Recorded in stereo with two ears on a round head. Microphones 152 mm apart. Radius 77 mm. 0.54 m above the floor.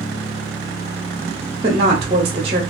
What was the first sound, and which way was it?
A woman speaking, 30° right (ahead or behind).